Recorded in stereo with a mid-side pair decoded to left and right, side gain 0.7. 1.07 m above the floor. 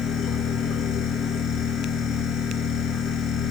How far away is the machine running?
About 3 m.